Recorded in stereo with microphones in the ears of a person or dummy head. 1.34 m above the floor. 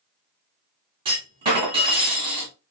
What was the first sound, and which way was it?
A clunk, 30° right (ahead or behind).